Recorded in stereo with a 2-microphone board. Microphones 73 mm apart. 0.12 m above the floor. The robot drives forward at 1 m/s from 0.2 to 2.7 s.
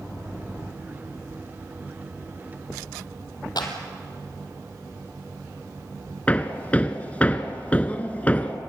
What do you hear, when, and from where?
3.6 s a clap: 70° left (ahead or behind), 2.5 m
6.3 s hammering: 20° left (ahead or behind), 1.1 m